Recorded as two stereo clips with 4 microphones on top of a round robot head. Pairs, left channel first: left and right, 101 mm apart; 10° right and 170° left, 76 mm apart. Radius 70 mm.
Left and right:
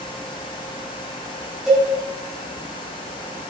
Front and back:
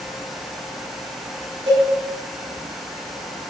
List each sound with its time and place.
1.7 s a cowbell: 175° right, 4.5 m